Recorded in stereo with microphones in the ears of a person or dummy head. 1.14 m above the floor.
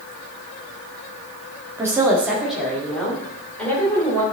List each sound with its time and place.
1.8 s a woman speaking: 15° right (ahead or behind), 1.8 m; by 4.2 s 15° left (ahead or behind), 3.5 m